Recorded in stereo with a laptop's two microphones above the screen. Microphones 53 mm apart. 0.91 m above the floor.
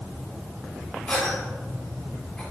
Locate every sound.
1.1 s a cough: 20° left (ahead or behind), 1.8 m